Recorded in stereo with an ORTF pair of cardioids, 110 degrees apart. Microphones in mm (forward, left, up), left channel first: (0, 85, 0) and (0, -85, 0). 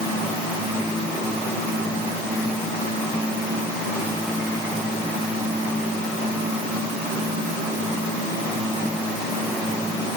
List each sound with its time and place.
Only background noise.